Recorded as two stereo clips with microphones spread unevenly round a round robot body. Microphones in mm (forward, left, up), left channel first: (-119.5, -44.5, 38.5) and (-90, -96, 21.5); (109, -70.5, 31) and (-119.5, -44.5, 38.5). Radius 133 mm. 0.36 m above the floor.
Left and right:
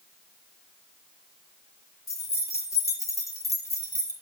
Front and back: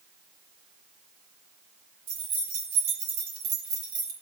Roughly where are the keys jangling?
Behind left.